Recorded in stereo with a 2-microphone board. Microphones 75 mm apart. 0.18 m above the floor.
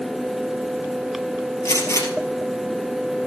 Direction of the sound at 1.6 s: 40° left (ahead or behind).